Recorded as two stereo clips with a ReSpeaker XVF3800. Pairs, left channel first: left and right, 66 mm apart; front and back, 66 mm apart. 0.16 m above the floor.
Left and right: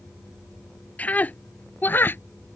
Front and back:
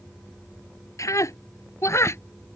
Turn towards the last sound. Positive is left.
turn(degrees=35)